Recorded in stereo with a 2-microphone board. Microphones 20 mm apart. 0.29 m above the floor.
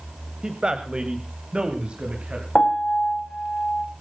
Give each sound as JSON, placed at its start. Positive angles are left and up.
{"t": 0.4, "sound": "a man speaking", "side_deg": -35, "distance_m": 1.7}
{"t": 2.5, "sound": "a piano", "side_deg": 60, "distance_m": 3.5}